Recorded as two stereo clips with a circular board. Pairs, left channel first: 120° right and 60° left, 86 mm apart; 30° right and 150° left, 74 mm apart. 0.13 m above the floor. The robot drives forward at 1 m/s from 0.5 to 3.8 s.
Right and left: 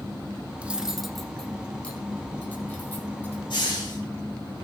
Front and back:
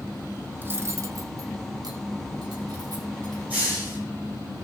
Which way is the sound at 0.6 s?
120° left.